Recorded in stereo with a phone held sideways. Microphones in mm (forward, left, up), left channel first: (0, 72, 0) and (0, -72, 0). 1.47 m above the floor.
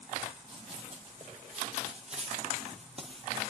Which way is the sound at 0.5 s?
40° right (ahead or behind).